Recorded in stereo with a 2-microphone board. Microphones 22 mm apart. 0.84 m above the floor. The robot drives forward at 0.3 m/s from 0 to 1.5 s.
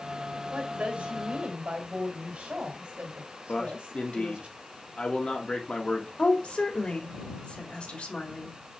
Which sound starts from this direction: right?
A woman speaking, at 0.5 s.